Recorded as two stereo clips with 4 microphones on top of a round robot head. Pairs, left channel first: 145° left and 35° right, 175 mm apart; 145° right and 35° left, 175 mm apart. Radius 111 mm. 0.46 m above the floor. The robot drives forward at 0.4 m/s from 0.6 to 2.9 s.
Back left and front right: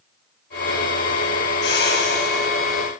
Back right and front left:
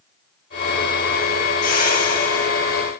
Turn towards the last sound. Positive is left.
turn(degrees=175)